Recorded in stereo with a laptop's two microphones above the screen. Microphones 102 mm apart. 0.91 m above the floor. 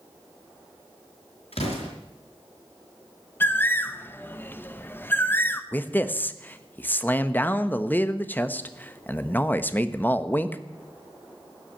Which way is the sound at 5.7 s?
20° left (ahead or behind).